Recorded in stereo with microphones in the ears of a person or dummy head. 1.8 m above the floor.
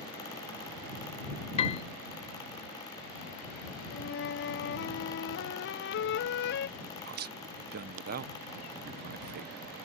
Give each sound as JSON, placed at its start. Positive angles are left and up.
{"t": 1.6, "sound": "a piano", "side_deg": 30}
{"t": 3.9, "sound": "a flute", "side_deg": 60}
{"t": 6.8, "sound": "a man speaking", "side_deg": -50}